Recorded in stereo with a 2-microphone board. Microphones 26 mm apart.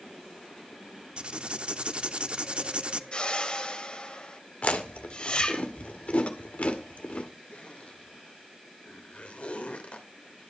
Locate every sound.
1.2 s writing: 45° right (ahead or behind), 0.7 m
3.1 s a whoosh: 40° left (ahead or behind), 1.7 m
4.6 s chewing: 60° left (ahead or behind), 1.7 m
7.5 s a zipper: 65° left (ahead or behind), 2.5 m